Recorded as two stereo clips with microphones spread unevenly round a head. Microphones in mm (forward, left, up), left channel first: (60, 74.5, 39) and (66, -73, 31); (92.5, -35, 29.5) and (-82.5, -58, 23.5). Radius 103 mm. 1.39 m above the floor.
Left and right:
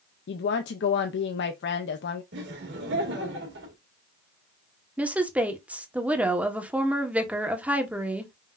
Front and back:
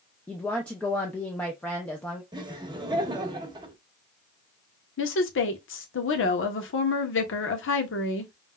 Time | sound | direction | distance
0.3 | a woman speaking | 90° left | 0.5 m
2.3 | laughter | 105° right | 1.6 m
5.0 | a woman speaking | 5° right | 1.3 m